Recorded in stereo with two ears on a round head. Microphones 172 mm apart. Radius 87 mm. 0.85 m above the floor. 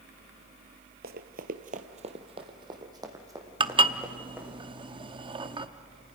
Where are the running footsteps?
50° right (ahead or behind), 1.3 m; by 4.6 s 10° right (ahead or behind), 4 m.